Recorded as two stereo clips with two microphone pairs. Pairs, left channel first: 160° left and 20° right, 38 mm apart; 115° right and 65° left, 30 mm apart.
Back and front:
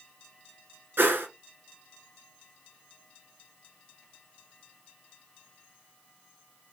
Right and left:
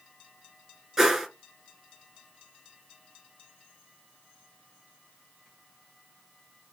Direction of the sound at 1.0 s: 10° right.